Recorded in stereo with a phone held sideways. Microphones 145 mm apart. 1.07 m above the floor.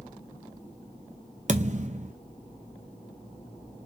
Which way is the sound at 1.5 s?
50° right (ahead or behind).